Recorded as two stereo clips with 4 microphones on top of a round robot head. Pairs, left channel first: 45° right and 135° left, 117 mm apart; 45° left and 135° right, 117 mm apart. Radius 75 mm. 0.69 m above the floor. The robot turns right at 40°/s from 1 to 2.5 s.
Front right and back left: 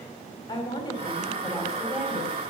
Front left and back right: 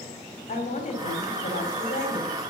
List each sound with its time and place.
0.5 s a woman speaking: 10° left, 4.5 m; by 2.4 s 70° left, 4.5 m